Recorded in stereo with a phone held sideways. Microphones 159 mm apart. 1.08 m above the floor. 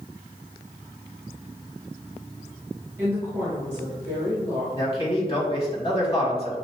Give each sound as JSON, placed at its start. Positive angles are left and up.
{"t": 3.0, "sound": "a woman speaking", "side_deg": -20, "distance_m": 1.5}
{"t": 4.7, "sound": "a man speaking", "side_deg": 35, "distance_m": 1.5}